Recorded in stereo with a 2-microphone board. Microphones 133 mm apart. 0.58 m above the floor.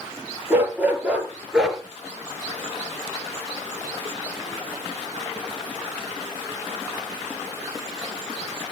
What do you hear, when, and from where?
0.5 s a dog barking: 15° right (ahead or behind), 5 m; by 1.8 s centre (ahead or behind), 4 m